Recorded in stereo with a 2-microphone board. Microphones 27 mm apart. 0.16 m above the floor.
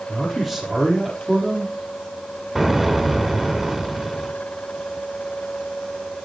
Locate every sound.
0.1 s a man speaking: 5° right (ahead or behind), 5 m
2.5 s an explosion: 5° right (ahead or behind), 1.6 m